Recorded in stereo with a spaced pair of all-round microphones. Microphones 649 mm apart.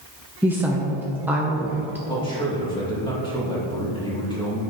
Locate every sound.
0.4 s a woman speaking: 5° right (ahead or behind), 0.7 m
2.1 s a man speaking: 5° left (ahead or behind), 2.5 m